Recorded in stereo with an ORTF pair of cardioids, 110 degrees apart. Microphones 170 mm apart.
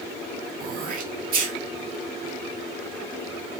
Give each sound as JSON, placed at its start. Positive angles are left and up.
{"t": 0.6, "sound": "throat clearing", "azimuth_deg": -60, "distance_m": 1.1}